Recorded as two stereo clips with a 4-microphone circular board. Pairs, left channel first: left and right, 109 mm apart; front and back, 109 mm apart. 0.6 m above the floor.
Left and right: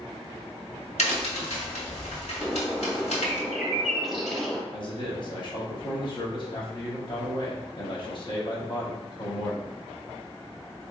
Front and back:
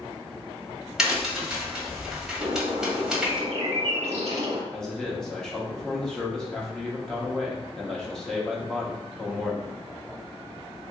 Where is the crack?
95° left, 1.1 m.